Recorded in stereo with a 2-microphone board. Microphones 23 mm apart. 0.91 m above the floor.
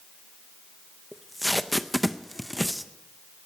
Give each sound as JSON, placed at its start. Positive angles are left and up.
{"t": 1.1, "sound": "tape being pulled", "side_deg": 5, "distance_m": 0.6}